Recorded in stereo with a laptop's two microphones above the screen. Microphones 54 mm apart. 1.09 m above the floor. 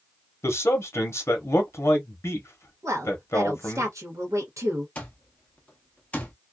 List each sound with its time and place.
0.4 s a man speaking: 55° left (ahead or behind), 0.9 m
2.8 s a woman speaking: 70° right (ahead or behind), 1.0 m
5.0 s an alarm clock: 25° left (ahead or behind), 0.6 m